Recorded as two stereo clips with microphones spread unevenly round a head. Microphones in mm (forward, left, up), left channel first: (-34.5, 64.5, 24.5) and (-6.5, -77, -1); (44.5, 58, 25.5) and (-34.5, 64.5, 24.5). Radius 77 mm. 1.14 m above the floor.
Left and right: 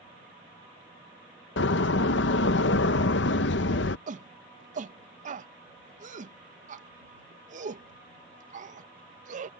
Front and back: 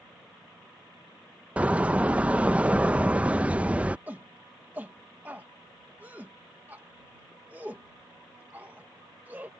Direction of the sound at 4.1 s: 110° right.